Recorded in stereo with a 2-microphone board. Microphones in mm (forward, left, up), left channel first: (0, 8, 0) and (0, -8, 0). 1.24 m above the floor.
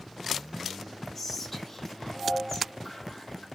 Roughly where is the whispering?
Centre.